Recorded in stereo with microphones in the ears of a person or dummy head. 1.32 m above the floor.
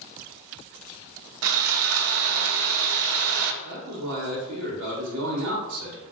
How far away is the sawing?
About 0.6 m.